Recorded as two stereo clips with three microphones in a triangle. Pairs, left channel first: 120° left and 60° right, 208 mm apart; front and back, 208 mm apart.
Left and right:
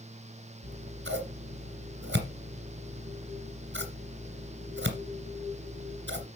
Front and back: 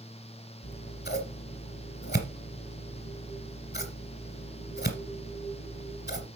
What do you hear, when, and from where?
0.6 s scissors: 35° right, 2 m